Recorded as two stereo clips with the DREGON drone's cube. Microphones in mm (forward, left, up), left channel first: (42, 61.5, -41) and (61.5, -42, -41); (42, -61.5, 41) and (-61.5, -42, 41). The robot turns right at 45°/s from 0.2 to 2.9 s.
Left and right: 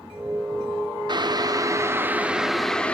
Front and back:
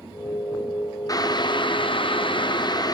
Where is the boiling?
55° right, 0.7 m; by 2.9 s 25° left, 0.7 m.